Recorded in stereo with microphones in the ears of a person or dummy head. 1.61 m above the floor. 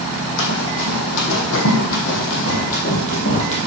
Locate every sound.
0.4 s running footsteps: 60° left (ahead or behind), 3 m; by 3.7 s 40° left (ahead or behind), 2.5 m